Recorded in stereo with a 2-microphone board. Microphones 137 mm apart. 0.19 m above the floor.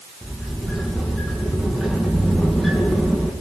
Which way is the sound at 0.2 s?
Centre (ahead or behind).